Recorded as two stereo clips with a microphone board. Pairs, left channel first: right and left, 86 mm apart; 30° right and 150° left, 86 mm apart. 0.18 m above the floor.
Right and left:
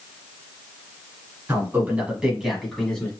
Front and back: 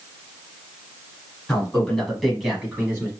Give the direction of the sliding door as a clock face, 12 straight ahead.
No sliding door in this recording.